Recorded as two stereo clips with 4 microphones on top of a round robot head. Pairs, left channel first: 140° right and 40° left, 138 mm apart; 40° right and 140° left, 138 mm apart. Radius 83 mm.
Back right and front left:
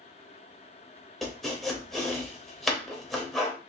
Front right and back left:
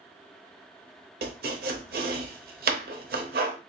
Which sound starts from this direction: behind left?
Chopping, at 1.2 s.